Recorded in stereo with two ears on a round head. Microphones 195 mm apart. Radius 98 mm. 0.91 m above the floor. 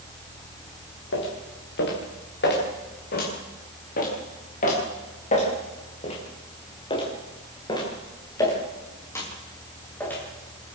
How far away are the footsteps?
About 6 m.